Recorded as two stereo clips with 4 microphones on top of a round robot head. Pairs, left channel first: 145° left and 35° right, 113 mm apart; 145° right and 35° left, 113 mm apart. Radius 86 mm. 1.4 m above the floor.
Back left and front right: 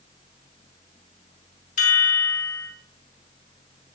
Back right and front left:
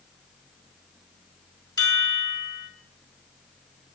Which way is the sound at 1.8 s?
155° left.